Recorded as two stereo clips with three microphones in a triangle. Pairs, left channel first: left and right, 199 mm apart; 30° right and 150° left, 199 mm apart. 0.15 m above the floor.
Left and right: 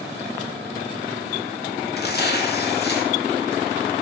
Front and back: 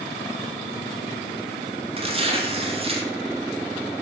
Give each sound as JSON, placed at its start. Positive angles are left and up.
{"t": 2.0, "sound": "tearing paper", "azimuth_deg": 100, "distance_m": 0.7}